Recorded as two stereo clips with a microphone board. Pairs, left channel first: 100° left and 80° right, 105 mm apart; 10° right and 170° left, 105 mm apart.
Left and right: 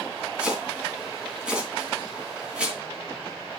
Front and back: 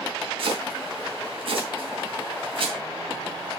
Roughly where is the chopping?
Behind.